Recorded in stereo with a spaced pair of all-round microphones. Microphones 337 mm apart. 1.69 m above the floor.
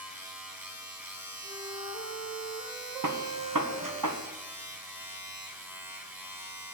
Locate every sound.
0.0 s a machine running: 5° right (ahead or behind), 2.5 m
1.4 s a flute: 10° right (ahead or behind), 3.5 m
3.0 s a gunshot: 70° right (ahead or behind), 1.3 m